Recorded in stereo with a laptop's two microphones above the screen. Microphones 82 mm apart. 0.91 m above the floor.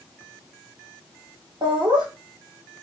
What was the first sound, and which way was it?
Laughter, 60° right (ahead or behind).